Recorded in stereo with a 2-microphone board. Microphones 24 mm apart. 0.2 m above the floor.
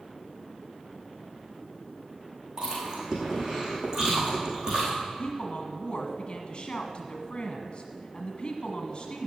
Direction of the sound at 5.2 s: 35° left (ahead or behind).